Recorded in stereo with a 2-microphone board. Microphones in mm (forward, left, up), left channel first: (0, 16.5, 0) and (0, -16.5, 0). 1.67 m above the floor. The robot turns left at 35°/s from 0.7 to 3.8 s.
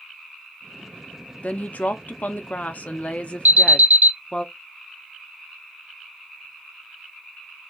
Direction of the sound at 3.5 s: 70° right (ahead or behind).